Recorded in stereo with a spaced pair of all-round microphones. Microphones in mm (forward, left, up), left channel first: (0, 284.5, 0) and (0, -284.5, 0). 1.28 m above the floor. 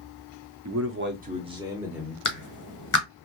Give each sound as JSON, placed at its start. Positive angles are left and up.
{"t": 0.7, "sound": "a man speaking", "side_deg": -30, "distance_m": 0.7}
{"t": 2.2, "sound": "a clap", "side_deg": 35, "distance_m": 0.8}